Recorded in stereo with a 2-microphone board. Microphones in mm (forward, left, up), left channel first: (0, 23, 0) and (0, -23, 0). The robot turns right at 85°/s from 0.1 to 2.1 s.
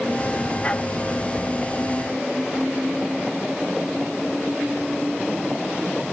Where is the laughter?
No laughter in this recording.